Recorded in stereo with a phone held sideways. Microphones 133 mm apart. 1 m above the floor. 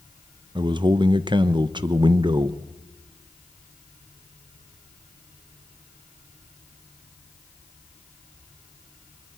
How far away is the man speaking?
About 0.9 m.